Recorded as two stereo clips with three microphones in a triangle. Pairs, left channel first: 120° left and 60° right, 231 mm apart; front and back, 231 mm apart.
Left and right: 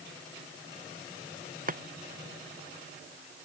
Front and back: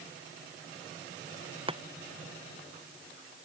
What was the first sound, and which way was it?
Chopping, 115° right.